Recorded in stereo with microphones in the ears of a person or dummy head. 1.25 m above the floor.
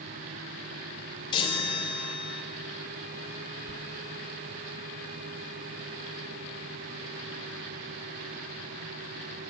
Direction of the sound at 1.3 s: 25° left (ahead or behind).